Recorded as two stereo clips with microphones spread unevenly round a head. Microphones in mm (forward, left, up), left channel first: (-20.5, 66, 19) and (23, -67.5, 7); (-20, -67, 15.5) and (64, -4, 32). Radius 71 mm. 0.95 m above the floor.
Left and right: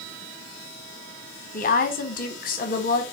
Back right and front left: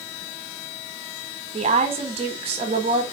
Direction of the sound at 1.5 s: 80° left.